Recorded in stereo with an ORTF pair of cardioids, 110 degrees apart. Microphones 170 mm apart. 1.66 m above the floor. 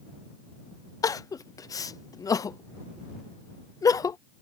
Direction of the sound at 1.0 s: 20° left.